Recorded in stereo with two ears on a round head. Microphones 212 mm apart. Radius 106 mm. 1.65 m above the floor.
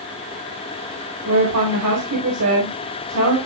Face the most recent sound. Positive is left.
turn(degrees=-80)